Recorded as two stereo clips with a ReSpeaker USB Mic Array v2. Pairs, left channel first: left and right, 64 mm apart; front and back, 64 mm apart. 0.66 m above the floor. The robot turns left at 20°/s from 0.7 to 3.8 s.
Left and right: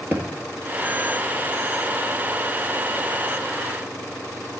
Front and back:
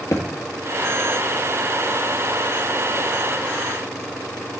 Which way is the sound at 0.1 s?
35° right.